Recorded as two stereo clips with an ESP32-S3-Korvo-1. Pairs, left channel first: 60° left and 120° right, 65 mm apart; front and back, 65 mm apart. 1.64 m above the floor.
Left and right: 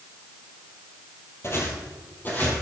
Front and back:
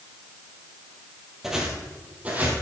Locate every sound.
1.4 s footsteps: 95° left, 2.5 m; by 2.6 s 120° left, 3.5 m